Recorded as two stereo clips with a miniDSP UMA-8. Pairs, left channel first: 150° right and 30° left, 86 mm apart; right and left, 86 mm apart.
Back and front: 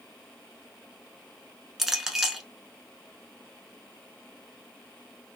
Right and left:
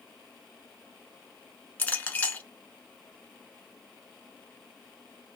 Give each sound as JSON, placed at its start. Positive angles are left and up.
{"t": 1.8, "sound": "a clink", "azimuth_deg": -55, "distance_m": 0.7}